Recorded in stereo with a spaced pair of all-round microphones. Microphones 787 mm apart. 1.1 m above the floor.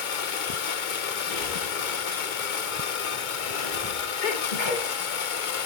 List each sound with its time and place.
0.0 s a machine running: 70° left (ahead or behind), 1.0 m
1.3 s breathing: 80° left, 1.9 m
4.2 s a sneeze: 70° left (ahead or behind), 1.8 m